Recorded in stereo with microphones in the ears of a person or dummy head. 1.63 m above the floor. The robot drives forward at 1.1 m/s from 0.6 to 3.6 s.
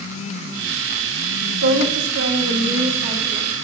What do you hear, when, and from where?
1.6 s a woman speaking: 70° right (ahead or behind), 2 m; by 3.5 s 35° right (ahead or behind), 3.5 m